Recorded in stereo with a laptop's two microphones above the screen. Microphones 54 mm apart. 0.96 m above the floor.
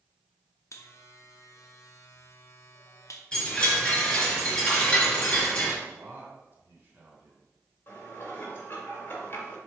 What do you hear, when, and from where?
0.7 s a buzzer: 65° left (ahead or behind), 0.7 m
3.3 s a chime: 15° left (ahead or behind), 2.5 m
5.8 s a man speaking: 40° right (ahead or behind), 3 m
7.9 s dishes clattering: 40° left (ahead or behind), 1.9 m